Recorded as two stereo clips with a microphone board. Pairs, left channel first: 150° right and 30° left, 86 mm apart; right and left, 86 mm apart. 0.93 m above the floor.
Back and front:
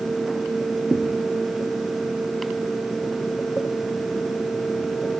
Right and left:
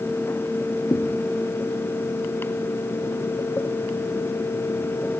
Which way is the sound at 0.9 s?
65° right.